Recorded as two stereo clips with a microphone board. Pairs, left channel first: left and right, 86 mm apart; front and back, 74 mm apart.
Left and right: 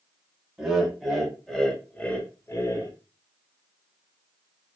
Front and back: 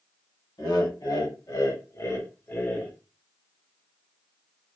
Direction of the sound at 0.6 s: 10° right.